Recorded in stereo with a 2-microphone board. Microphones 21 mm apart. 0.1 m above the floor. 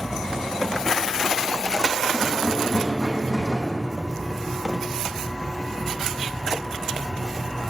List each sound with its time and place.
2.1 s a rattle: 10° left (ahead or behind), 4 m